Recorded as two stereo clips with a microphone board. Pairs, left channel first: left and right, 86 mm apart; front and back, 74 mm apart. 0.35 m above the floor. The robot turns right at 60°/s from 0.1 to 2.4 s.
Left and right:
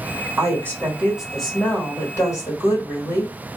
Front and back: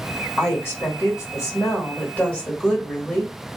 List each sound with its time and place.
0.4 s a woman speaking: 55° right, 1.5 m; by 3.3 s 65° left, 1.5 m